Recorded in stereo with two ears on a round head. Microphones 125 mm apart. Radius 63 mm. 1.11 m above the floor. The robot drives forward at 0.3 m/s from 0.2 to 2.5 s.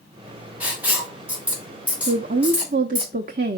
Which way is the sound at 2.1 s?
60° right (ahead or behind).